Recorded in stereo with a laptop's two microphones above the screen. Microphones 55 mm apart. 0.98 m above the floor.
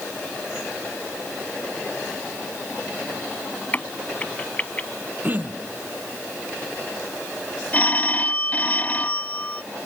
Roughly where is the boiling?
I don't hear boiling.